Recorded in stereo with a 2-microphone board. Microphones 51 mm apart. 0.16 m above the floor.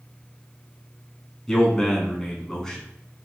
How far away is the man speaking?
About 1.1 m.